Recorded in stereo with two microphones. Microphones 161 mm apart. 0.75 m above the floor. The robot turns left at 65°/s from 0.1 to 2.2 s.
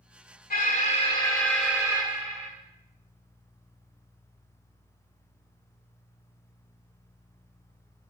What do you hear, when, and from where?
0.5 s an alarm: 70° left, 1.3 m; by 2.5 s 40° right, 1.3 m